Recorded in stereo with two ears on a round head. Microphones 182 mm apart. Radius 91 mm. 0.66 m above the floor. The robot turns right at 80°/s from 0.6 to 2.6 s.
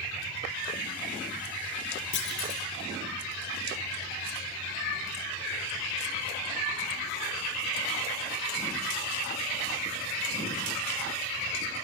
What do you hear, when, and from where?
2.1 s a clunk: 110° left, 1.9 m; by 2.6 s 145° left, 1.9 m